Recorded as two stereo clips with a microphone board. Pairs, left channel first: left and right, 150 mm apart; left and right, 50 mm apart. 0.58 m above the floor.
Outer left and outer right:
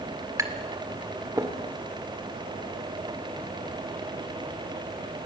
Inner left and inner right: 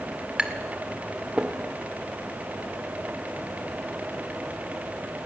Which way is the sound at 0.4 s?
20° right (ahead or behind).